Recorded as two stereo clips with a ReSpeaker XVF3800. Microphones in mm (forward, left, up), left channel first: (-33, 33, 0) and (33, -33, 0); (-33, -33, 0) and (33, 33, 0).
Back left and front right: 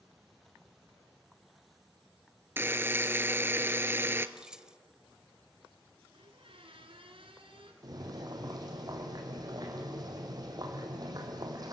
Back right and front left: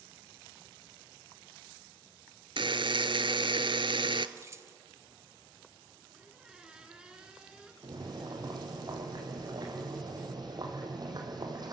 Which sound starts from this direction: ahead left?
Keys jangling, at 4.4 s.